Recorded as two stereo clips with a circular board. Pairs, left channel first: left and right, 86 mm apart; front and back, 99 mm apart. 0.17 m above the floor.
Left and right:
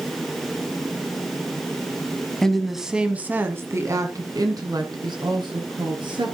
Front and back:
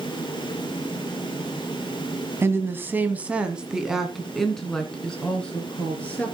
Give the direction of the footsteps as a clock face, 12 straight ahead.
I don't hear footsteps.